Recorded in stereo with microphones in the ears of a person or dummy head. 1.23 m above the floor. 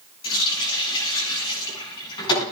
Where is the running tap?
25° left (ahead or behind), 9.5 m.